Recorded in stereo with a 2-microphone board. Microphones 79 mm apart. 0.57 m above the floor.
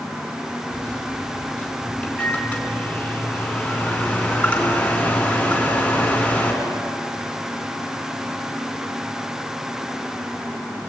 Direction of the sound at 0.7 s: 20° left (ahead or behind).